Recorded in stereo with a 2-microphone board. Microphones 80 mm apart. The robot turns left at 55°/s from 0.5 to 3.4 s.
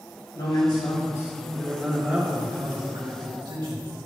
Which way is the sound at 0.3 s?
75° left.